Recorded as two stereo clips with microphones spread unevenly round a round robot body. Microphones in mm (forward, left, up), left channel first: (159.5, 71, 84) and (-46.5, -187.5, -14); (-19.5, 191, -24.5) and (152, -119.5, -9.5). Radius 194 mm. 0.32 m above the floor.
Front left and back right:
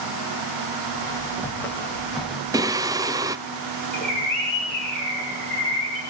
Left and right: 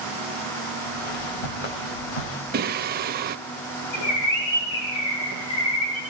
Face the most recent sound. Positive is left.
turn(degrees=140)